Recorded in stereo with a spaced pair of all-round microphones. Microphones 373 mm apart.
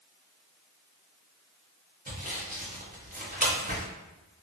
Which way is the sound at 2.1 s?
20° right (ahead or behind).